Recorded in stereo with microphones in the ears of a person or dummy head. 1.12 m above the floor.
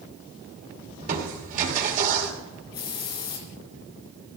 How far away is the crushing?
About 2.5 m.